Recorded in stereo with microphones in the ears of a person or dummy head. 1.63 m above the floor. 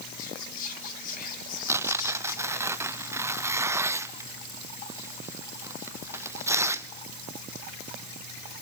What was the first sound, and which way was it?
Whispering, 45° left (ahead or behind).